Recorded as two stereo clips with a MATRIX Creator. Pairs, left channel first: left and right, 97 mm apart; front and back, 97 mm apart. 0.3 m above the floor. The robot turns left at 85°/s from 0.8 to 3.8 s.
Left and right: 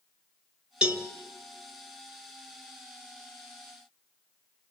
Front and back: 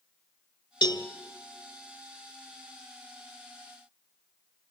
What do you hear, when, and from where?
0.8 s a cowbell: 15° right, 0.9 m; by 1.1 s 35° right, 0.9 m